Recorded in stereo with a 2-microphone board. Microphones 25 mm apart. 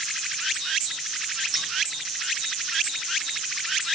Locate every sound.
1.5 s scissors: 15° right (ahead or behind), 2 m